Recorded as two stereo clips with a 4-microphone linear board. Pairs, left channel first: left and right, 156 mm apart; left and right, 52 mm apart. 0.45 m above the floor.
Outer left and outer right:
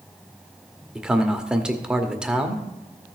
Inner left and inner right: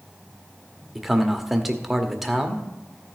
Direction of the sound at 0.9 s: 5° right (ahead or behind).